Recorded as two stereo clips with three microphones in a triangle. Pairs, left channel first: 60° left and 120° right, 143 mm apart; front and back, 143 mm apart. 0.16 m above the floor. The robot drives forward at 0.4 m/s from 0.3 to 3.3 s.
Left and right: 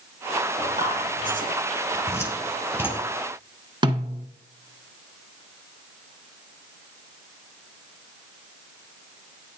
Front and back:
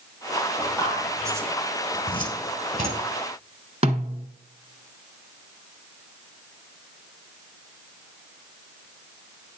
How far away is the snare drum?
About 1.1 m.